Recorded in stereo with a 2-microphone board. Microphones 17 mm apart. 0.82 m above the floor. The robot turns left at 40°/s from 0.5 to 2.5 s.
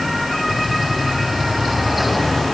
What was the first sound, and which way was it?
Only background noise.